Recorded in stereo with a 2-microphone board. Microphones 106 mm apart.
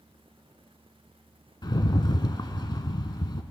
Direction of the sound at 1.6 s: 45° left (ahead or behind).